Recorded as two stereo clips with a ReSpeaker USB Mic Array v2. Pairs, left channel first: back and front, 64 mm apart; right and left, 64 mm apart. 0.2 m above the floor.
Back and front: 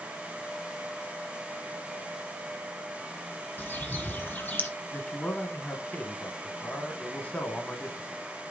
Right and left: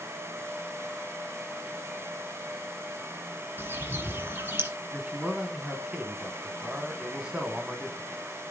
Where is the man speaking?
145° left, 1.1 m.